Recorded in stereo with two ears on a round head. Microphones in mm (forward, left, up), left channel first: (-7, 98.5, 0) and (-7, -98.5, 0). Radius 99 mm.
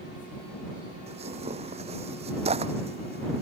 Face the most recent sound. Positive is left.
turn(degrees=-30)  # may be behind; listen again after turning